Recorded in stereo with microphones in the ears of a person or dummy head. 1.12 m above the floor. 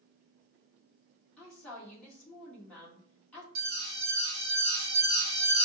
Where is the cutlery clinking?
I don't hear cutlery clinking.